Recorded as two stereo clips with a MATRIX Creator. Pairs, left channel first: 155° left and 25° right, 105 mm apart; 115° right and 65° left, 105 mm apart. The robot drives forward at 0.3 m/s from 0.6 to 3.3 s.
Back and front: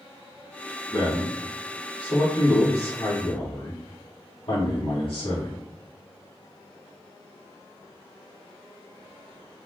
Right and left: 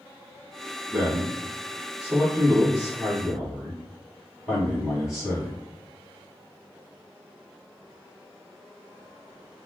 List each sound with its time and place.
0.9 s a man speaking: 140° left, 1.6 m; by 5.6 s 155° left, 2 m